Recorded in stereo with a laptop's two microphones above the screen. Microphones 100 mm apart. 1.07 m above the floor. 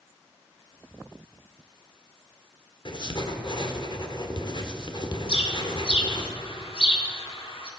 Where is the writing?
50° left (ahead or behind), 1.3 m.